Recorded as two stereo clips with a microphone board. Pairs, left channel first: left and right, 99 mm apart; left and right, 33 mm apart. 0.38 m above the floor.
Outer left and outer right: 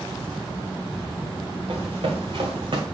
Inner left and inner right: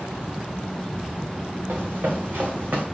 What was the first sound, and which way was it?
Running footsteps, 80° right.